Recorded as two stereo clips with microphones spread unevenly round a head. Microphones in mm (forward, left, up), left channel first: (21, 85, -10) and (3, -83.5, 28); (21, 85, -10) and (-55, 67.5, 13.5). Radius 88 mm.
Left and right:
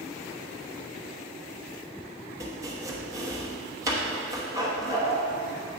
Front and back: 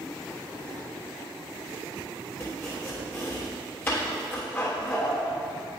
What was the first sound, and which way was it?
Chopping, 70° right.